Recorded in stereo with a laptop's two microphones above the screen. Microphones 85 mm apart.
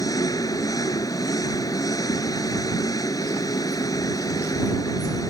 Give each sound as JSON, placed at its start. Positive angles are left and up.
{"t": 0.0, "sound": "an engine running", "side_deg": 45}